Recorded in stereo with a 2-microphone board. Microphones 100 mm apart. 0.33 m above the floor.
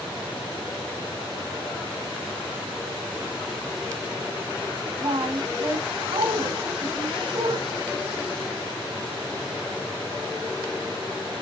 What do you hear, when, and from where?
5.0 s a woman speaking: 55° right (ahead or behind), 3 m